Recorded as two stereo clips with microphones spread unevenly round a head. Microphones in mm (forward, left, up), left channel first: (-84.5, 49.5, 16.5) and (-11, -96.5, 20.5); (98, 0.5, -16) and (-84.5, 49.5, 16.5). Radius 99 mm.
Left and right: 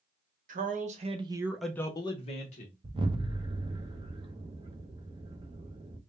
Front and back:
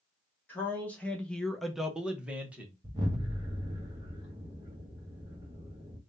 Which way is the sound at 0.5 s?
90° right.